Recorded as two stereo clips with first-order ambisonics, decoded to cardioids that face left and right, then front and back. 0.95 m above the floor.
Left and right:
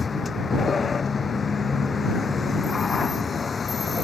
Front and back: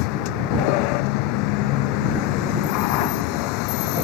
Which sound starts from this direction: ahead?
A vehicle, at 0.0 s.